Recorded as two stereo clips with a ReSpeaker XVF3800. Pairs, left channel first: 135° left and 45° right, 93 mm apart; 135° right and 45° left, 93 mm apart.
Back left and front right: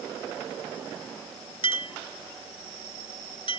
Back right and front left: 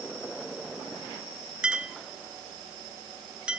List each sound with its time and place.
1.6 s a clink: 125° left